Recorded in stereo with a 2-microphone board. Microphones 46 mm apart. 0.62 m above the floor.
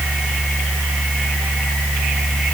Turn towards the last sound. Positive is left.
No sound to turn to.